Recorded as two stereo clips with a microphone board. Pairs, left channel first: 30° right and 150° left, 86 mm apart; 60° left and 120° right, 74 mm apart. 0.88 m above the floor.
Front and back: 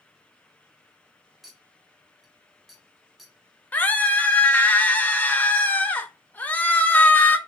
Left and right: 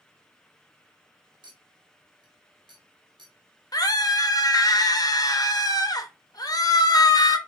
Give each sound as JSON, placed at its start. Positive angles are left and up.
{"t": 1.4, "sound": "a clink", "azimuth_deg": -120, "distance_m": 1.1}
{"t": 3.7, "sound": "a scream", "azimuth_deg": 40, "distance_m": 0.9}